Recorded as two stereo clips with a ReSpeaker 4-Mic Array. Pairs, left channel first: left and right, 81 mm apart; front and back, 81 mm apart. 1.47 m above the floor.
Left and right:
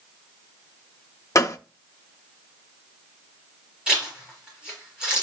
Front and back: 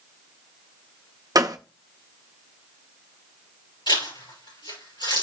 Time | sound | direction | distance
1.4 | a gunshot | 140° left | 0.6 m
3.9 | a zipper | 10° right | 6 m